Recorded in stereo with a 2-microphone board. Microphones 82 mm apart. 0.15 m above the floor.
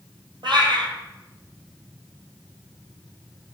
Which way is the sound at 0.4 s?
75° right (ahead or behind).